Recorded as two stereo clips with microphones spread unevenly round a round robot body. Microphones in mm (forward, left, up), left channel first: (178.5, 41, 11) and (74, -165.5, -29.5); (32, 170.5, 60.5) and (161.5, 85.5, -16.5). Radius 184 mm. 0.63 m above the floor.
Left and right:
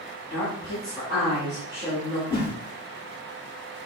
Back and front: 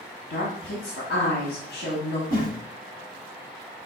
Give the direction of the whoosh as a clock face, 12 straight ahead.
7 o'clock.